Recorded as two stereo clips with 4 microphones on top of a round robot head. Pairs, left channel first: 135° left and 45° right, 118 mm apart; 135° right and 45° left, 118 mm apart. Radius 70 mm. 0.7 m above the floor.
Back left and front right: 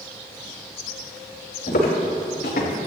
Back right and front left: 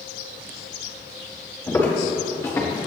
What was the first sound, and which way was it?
Footsteps, 150° left.